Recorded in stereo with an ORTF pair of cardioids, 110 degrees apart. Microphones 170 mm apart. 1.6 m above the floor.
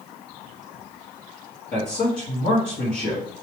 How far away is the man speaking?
About 1.4 m.